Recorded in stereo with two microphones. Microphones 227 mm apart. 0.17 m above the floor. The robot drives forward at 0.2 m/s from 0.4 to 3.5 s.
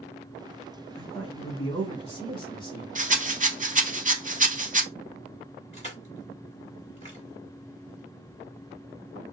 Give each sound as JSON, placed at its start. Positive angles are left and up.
{"t": 0.9, "sound": "a man speaking", "side_deg": 25, "distance_m": 1.5}
{"t": 3.0, "sound": "a rattle", "side_deg": -35, "distance_m": 0.6}
{"t": 5.7, "sound": "crushing", "side_deg": 30, "distance_m": 1.8}